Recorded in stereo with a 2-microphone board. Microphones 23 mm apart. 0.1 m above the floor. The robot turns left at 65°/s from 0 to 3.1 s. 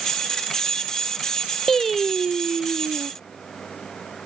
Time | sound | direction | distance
1.7 | singing | 20° left | ?